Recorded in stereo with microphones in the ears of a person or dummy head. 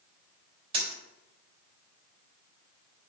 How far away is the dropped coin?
About 2.5 m.